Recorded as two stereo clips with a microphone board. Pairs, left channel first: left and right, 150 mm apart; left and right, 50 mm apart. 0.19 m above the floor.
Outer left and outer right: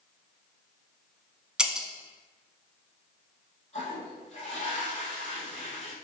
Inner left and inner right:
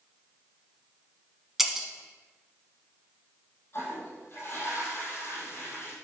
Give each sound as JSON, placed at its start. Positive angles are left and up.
{"t": 1.6, "sound": "breaking glass", "side_deg": -5, "distance_m": 0.8}
{"t": 3.7, "sound": "a toilet flushing", "side_deg": 40, "distance_m": 2.5}